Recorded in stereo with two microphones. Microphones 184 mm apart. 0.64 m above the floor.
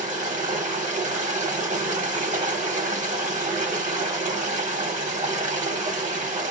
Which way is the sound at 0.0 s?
40° right (ahead or behind).